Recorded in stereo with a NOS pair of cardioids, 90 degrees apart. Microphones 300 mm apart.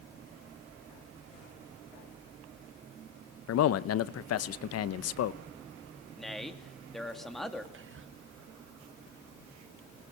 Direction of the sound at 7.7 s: 45° right.